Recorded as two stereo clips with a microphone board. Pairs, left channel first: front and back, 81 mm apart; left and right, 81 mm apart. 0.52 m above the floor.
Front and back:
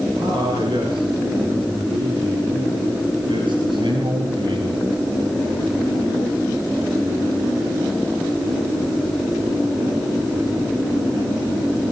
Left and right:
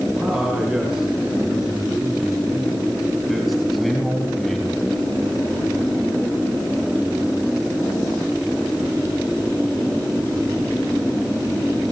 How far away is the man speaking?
About 6.5 m.